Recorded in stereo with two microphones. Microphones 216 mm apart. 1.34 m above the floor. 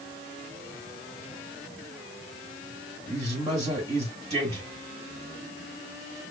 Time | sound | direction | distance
3.1 | a man speaking | 25° right (ahead or behind) | 1.8 m